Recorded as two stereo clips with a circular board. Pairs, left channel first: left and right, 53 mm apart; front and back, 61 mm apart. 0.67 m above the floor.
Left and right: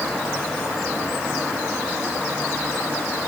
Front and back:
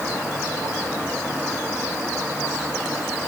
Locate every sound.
Only background noise.